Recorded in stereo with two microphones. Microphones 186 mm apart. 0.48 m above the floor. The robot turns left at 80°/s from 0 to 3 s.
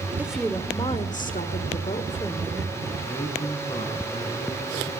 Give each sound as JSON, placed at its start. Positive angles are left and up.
{"t": 0.2, "sound": "a woman speaking", "azimuth_deg": -165, "distance_m": 1.5}
{"t": 3.0, "sound": "a man speaking", "side_deg": 35, "distance_m": 6.0}